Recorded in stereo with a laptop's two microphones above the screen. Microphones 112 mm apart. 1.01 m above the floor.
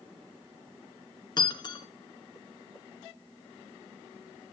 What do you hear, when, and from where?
1.4 s breaking glass: 40° left (ahead or behind), 1.4 m